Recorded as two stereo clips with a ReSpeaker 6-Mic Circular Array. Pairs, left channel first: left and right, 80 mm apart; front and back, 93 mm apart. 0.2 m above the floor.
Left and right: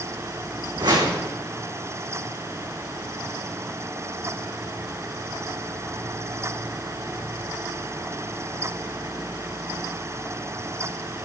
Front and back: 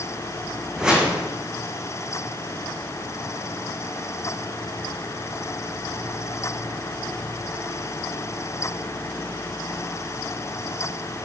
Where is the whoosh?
100° right, 5 m.